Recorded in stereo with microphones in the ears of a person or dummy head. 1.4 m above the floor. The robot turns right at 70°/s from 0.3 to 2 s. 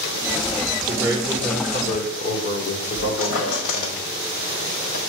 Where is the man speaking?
25° right, 1.4 m; by 4.0 s 55° left, 1.4 m.